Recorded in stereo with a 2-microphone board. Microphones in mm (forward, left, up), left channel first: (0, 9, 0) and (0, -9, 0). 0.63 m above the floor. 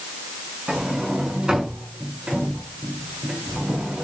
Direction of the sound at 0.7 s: 40° right (ahead or behind).